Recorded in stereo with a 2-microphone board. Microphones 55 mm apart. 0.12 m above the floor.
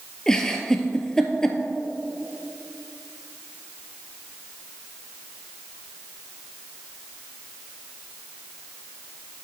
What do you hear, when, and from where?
0.3 s a giggle: 10° left (ahead or behind), 0.7 m